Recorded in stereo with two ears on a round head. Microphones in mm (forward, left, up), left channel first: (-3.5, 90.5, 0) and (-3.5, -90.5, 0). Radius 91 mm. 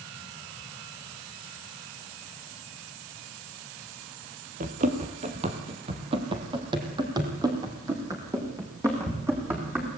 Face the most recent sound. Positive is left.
turn(degrees=-10)  # may be behind; listen again after turning